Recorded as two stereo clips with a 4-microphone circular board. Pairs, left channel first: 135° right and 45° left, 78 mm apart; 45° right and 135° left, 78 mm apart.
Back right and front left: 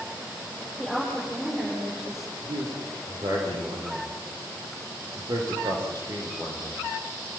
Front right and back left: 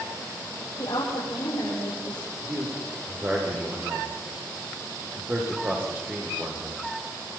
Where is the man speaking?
70° left, 9 m.